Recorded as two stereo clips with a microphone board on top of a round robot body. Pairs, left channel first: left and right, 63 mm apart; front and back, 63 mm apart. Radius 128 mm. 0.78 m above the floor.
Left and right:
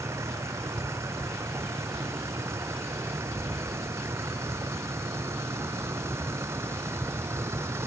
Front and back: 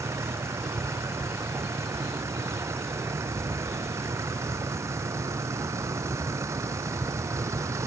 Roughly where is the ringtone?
I don't hear a ringtone.